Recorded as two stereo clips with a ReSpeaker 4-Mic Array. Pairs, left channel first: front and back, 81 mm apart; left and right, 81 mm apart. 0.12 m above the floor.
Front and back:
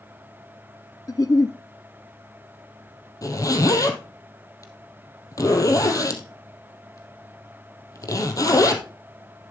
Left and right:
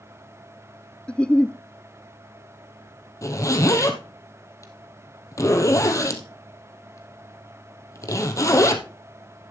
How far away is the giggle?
About 0.5 m.